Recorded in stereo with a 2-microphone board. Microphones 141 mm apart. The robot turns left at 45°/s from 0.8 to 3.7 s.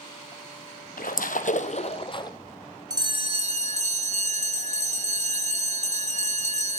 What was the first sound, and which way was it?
A splash, 90° left.